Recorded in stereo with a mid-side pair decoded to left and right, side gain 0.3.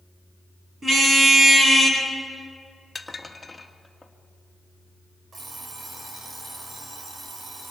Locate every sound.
0.8 s a car horn: 45° right, 7.5 m; by 2.0 s 40° right, 7.5 m
3.0 s dishes clattering: 20° left, 1.9 m
5.3 s an alarm clock: 65° right, 4.5 m